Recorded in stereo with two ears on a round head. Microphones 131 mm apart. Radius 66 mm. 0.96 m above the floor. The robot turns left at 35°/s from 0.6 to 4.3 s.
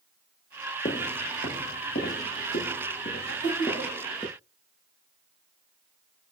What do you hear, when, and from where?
0.8 s footsteps: 40° left (ahead or behind), 1.2 m; by 4.3 s 15° left (ahead or behind), 5 m
3.3 s laughter: 80° left, 5.5 m; by 4.0 s 60° left (ahead or behind), 5.5 m